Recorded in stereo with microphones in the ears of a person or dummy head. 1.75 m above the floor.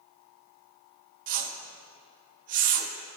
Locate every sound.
1.3 s a whoosh: 55° right (ahead or behind), 0.9 m